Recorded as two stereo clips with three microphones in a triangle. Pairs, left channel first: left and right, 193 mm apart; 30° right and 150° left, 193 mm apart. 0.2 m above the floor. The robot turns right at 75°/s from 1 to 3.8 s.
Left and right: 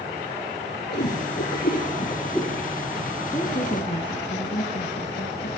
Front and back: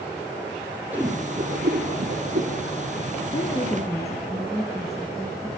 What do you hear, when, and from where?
0.9 s a whoosh: 70° left, 2.5 m; by 2.5 s straight behind, 2.5 m
3.3 s a woman speaking: 20° left, 2.5 m; by 5.5 s 60° left, 2.5 m